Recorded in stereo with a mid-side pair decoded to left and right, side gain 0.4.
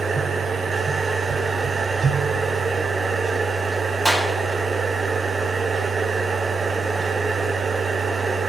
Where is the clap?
5° right, 2 m.